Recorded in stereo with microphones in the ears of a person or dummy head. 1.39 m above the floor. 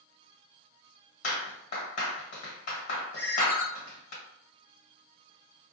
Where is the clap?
50° left (ahead or behind), 1.3 m.